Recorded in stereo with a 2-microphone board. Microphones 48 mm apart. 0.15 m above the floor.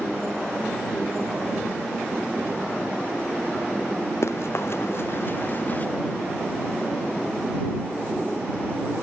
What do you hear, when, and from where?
4.2 s running footsteps: 65° left (ahead or behind); by 5.9 s 30° left (ahead or behind)